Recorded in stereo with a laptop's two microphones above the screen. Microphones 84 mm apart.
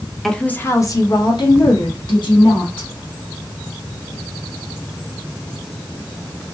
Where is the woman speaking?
Centre (ahead or behind), 0.5 m; by 2.9 s 75° left (ahead or behind), 1.8 m.